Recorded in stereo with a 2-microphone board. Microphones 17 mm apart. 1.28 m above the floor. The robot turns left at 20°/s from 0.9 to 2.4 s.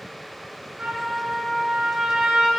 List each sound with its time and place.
0.8 s a trumpet: 85° right, 7 m; by 2.5 s 115° right, 7 m